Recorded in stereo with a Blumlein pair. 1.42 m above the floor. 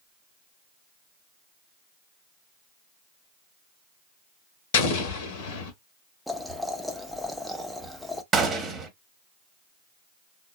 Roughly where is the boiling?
Ahead.